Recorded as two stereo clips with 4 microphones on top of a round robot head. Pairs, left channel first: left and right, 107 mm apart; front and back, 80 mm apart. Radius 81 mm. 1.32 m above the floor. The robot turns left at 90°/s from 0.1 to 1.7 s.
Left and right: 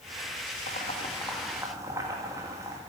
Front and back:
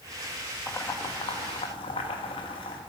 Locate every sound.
0.7 s boiling: 70° left, 1.9 m; by 2.8 s 25° right, 1.9 m